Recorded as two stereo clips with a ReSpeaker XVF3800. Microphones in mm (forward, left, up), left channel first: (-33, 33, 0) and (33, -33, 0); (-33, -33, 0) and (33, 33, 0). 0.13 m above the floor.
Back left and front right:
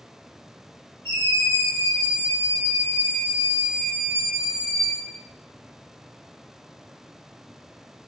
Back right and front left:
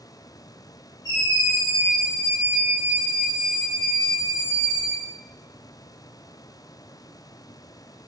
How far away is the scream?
About 1.9 m.